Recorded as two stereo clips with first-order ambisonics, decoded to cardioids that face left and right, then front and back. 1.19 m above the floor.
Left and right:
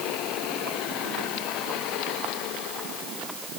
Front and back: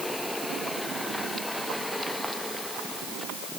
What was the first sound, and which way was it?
Only background noise.